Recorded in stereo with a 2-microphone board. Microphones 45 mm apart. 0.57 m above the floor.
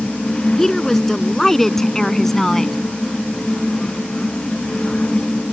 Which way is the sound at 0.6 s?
5° left (ahead or behind).